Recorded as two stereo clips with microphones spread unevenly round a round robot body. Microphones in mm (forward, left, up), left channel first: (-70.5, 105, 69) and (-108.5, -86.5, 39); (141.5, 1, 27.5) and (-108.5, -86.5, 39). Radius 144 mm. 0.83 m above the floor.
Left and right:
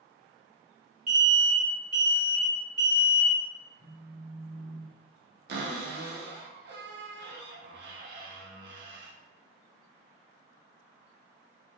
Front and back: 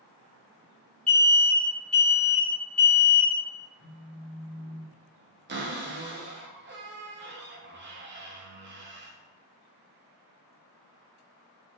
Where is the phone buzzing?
10° left, 1.3 m.